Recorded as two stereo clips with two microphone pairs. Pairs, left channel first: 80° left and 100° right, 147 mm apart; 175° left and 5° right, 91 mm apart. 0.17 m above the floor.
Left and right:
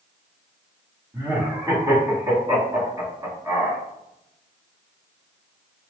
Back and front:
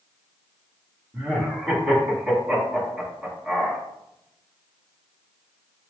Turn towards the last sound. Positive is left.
turn(degrees=-90)